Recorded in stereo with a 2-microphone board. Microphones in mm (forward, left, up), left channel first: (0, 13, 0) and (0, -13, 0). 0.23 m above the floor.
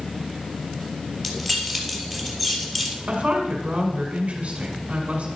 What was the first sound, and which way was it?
Keys jangling, 15° left (ahead or behind).